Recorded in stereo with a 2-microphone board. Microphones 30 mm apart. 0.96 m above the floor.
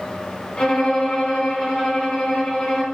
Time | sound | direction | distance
0.6 | a violin | 40° left (ahead or behind) | 3.5 m